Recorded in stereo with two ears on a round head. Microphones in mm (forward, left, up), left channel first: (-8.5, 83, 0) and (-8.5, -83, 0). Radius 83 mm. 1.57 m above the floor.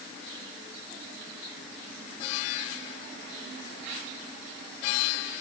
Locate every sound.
Only background noise.